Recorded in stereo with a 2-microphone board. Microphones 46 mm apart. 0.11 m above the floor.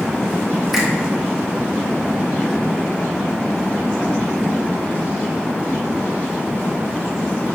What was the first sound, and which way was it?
A finger snap, 10° right (ahead or behind).